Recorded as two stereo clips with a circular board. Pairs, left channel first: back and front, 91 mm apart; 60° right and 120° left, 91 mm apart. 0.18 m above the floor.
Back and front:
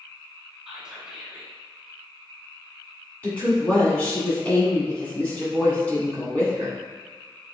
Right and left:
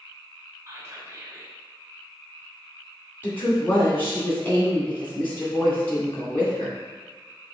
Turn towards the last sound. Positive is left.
turn(degrees=-115)